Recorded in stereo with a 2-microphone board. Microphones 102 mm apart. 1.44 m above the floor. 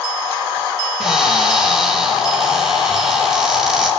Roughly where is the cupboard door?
Centre.